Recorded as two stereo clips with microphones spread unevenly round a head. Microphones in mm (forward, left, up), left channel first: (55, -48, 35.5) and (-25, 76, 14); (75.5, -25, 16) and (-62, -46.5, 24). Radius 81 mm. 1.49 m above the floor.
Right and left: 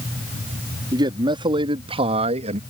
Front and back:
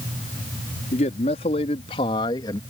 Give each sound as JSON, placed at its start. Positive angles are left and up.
{"t": 0.9, "sound": "a man speaking", "azimuth_deg": 60}